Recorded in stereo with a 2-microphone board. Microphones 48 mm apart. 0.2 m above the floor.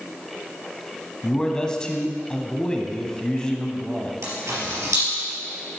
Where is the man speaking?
15° left (ahead or behind), 1.1 m.